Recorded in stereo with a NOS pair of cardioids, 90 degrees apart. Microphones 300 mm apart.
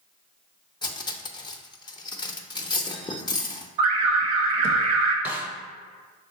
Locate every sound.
0.8 s cutlery clinking: 15° left, 0.5 m
3.8 s an alarm: 65° right, 1.0 m
5.2 s a snare drum: 5° right, 0.6 m